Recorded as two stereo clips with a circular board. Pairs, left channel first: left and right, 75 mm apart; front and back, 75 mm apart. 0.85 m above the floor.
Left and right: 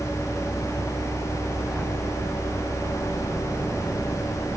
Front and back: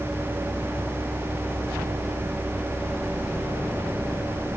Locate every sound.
Only background noise.